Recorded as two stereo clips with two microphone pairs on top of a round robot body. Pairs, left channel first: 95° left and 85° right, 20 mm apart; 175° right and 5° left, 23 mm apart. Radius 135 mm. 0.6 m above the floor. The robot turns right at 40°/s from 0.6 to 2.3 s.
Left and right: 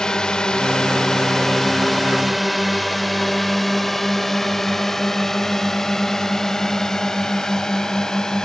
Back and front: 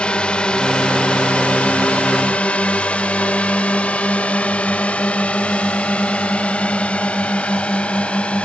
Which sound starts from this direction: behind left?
A drone, at 0.0 s.